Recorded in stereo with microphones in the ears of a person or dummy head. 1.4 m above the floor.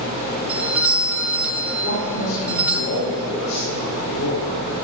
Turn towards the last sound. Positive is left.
turn(degrees=85)